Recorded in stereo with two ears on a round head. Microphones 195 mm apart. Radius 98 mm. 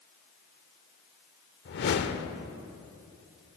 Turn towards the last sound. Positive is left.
turn(degrees=50)  # may be behind; listen again after turning